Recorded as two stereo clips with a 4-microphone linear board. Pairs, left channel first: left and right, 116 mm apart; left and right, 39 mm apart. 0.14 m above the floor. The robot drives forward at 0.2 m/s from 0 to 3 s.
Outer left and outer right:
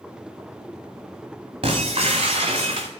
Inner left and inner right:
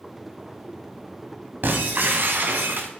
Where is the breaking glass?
50° right (ahead or behind), 3.5 m.